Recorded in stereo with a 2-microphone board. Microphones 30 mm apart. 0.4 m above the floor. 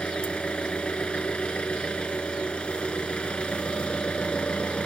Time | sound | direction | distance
0.0 | an engine running | 40° left (ahead or behind) | 2 m